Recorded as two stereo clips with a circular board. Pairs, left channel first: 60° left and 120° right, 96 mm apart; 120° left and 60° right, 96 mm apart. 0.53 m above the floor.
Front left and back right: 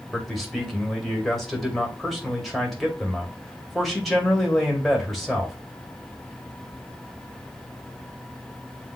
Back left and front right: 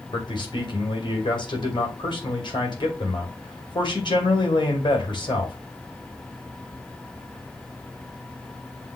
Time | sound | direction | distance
0.1 | a man speaking | 150° left | 2 m